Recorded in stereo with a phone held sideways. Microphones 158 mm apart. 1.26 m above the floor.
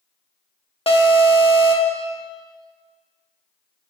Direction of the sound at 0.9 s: 35° left (ahead or behind).